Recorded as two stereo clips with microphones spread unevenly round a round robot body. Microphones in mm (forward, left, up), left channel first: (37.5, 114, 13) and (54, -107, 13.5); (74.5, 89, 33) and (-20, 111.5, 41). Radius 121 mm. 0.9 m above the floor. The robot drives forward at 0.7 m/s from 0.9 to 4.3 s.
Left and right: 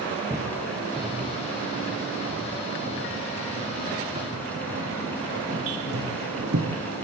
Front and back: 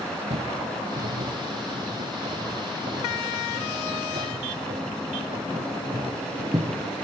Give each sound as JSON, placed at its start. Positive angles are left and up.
{"t": 0.3, "sound": "footsteps", "azimuth_deg": -165, "distance_m": 3.5}